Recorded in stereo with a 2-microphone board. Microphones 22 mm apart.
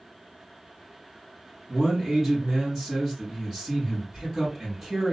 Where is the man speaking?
25° right (ahead or behind), 1.7 m.